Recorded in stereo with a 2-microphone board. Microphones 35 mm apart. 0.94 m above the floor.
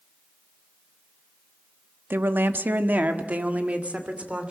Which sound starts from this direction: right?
A woman speaking, at 2.1 s.